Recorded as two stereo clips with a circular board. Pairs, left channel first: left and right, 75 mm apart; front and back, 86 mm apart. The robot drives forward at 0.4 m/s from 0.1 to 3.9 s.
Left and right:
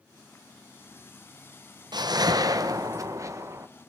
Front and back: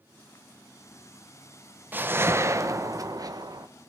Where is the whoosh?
115° right, 0.9 m; by 3.7 s 140° right, 1.3 m.